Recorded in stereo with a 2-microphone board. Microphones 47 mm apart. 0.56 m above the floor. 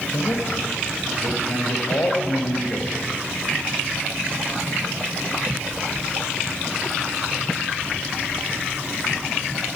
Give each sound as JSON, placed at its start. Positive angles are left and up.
{"t": 0.1, "sound": "a man speaking", "side_deg": 70, "distance_m": 3.0}